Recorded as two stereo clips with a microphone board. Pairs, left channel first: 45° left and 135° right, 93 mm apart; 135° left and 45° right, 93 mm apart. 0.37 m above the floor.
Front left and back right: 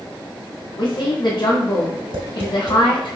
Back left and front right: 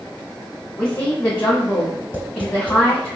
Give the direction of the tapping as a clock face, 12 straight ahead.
4 o'clock.